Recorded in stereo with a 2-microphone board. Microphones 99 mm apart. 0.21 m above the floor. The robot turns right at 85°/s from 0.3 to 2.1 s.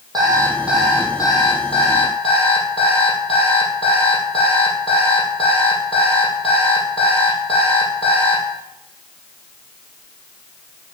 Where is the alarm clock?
40° right, 4 m; by 8.4 s 110° left, 4 m.